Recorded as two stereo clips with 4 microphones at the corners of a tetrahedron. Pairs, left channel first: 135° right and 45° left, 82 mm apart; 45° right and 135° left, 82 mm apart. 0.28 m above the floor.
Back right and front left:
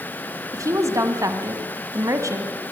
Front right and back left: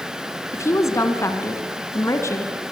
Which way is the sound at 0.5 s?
Straight ahead.